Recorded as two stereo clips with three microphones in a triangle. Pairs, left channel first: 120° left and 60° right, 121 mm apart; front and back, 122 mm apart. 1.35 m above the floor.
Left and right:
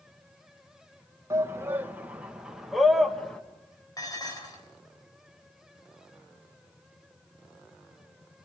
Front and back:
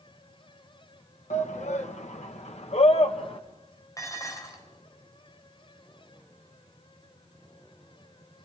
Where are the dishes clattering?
65° left, 3.5 m.